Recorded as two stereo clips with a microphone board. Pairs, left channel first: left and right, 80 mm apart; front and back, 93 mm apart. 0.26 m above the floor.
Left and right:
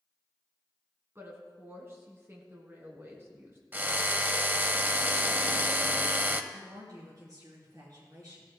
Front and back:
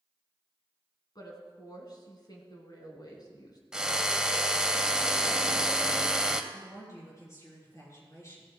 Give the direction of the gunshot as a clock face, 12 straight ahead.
I don't hear a gunshot.